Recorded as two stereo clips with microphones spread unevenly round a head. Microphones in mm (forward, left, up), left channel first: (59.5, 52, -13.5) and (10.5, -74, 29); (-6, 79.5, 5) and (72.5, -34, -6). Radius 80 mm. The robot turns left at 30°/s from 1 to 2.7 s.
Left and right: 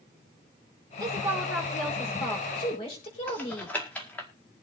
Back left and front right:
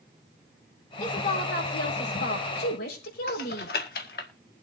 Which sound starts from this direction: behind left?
Typing on a keyboard, at 3.3 s.